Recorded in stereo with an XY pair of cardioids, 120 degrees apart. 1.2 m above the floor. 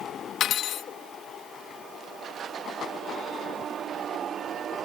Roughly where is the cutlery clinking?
Ahead left.